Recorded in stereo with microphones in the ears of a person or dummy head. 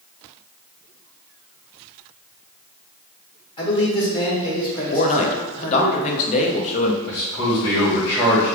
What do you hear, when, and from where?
3.6 s a man speaking: 30° left (ahead or behind), 1.9 m
4.9 s a man speaking: 40° left (ahead or behind), 0.8 m
7.1 s a man speaking: 20° left (ahead or behind), 1.8 m